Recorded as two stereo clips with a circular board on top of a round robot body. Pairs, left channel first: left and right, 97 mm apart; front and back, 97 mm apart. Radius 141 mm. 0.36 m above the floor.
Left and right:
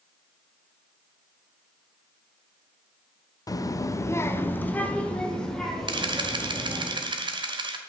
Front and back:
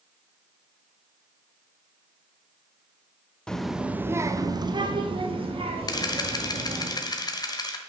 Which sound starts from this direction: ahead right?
A camera shutter, at 5.9 s.